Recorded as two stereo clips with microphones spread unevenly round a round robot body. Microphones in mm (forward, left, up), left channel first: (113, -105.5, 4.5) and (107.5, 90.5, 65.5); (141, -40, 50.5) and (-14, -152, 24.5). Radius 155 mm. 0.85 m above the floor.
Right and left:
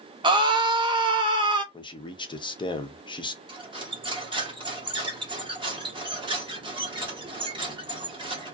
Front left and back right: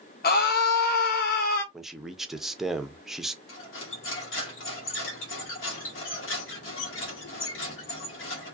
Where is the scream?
10° left, 0.5 m.